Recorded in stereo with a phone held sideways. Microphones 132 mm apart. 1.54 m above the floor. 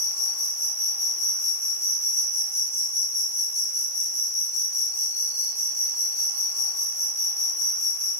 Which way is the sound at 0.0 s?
55° left (ahead or behind).